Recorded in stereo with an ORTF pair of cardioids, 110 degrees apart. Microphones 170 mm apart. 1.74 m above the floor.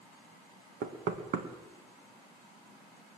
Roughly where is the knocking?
Ahead right.